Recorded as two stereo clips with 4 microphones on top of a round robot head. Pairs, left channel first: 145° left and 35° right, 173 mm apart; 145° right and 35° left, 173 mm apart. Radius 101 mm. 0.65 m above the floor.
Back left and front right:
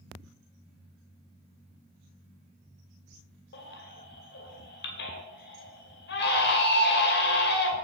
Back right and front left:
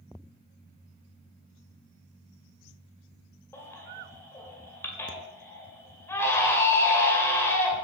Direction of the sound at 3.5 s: 140° left.